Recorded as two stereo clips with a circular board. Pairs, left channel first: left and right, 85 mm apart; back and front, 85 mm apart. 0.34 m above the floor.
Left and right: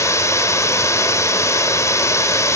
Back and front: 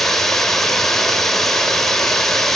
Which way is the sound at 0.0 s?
95° left.